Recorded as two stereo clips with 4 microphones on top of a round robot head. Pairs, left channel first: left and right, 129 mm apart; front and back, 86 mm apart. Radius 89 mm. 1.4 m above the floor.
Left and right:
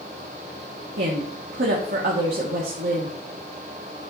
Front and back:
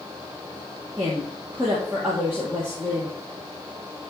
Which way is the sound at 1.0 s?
105° right.